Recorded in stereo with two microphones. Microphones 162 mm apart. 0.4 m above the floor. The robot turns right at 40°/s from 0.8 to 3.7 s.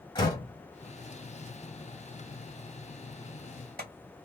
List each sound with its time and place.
0.1 s a door slam: 30° left (ahead or behind), 1.9 m; by 3.9 s 65° right (ahead or behind), 1.9 m